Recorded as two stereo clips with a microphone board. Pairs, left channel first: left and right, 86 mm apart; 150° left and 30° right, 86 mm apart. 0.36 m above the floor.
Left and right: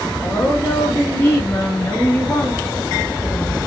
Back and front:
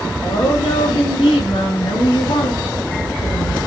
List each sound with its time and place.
0.2 s a woman speaking: 150° left, 9.5 m; by 3.6 s 165° left, 7 m